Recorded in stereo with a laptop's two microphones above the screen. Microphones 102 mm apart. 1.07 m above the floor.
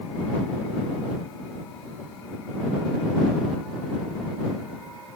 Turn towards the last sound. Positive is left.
No sound to turn to.